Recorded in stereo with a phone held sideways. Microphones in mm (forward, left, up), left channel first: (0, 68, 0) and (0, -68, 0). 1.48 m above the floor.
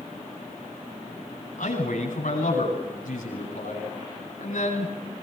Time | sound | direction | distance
1.6 | a man speaking | 80° left | 10 m